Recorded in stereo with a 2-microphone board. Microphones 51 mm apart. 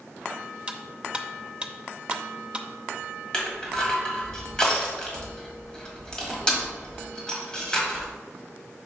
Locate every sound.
0.7 s cutlery clinking: 20° right (ahead or behind), 0.6 m
3.3 s crushing: 15° left (ahead or behind), 1.6 m